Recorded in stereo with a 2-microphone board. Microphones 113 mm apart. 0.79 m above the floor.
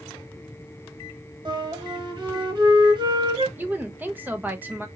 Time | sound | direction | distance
1.4 | a flute | 45° right (ahead or behind) | 1.0 m
3.6 | a woman speaking | 15° right (ahead or behind) | 0.5 m